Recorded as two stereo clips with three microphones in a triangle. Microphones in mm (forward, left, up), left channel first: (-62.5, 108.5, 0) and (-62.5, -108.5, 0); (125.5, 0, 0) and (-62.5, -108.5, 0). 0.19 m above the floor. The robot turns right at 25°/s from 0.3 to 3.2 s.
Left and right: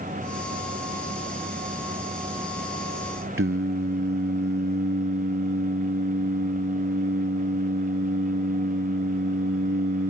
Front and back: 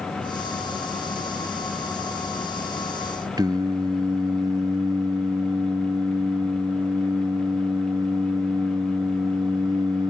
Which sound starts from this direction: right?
Singing, at 3.4 s.